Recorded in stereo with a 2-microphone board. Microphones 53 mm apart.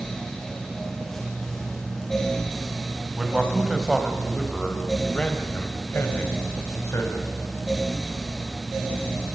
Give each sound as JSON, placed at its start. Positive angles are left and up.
{"t": 3.1, "sound": "a man speaking", "side_deg": -15, "distance_m": 4.0}